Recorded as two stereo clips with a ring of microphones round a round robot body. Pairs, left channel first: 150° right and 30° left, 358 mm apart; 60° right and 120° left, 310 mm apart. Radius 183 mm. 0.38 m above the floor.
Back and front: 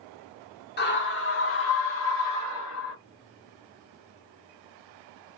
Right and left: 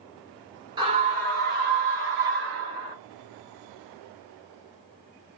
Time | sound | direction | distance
0.8 | a scream | straight behind | 1.0 m